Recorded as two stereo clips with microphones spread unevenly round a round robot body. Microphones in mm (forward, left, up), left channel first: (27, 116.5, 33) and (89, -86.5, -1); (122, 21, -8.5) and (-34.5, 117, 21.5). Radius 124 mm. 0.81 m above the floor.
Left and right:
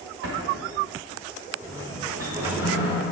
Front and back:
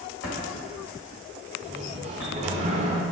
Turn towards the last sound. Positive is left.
turn(degrees=-155)